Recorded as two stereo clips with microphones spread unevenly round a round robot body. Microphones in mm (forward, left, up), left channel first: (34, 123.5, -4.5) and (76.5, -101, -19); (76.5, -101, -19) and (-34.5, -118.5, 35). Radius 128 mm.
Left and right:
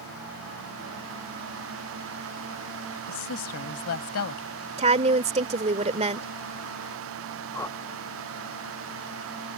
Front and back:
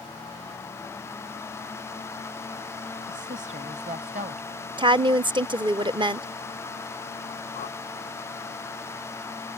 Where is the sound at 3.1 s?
130° left.